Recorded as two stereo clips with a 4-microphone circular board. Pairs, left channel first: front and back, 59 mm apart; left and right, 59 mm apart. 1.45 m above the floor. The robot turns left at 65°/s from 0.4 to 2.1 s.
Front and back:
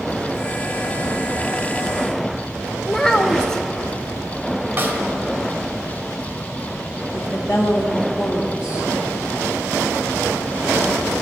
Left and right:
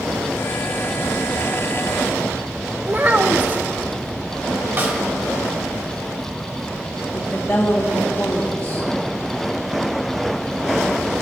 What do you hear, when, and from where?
2.9 s a child speaking: 70° right, 0.7 m
4.8 s a snare drum: 130° right, 2 m
7.1 s a woman speaking: 20° left, 2 m